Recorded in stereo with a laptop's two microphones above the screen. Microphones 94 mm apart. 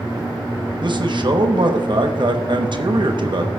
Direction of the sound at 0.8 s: 55° right (ahead or behind).